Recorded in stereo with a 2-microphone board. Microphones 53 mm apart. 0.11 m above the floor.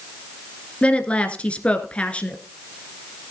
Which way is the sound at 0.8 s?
25° left (ahead or behind).